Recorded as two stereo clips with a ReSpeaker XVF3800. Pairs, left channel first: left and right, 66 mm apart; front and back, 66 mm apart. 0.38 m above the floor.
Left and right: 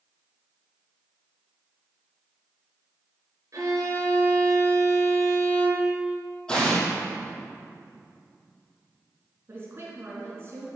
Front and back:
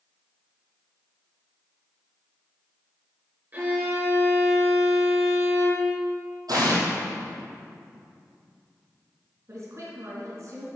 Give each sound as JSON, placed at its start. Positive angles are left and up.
{"t": 3.5, "sound": "a violin", "azimuth_deg": -125, "distance_m": 4.0}
{"t": 6.5, "sound": "an explosion", "azimuth_deg": 165, "distance_m": 2.5}
{"t": 9.5, "sound": "a woman speaking", "azimuth_deg": -140, "distance_m": 3.5}